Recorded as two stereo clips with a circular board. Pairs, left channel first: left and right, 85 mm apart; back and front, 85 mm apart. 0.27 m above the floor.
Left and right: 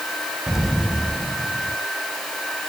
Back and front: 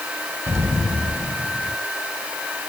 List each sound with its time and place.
0.5 s an explosion: 10° right, 1.4 m